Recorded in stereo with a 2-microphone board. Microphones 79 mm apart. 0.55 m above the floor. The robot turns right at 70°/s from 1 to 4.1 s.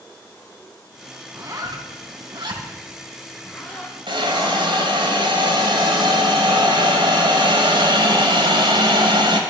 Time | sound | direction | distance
1.3 | a zipper | 30° right (ahead or behind) | 3 m
4.1 | a hiss | 75° right (ahead or behind) | 2.5 m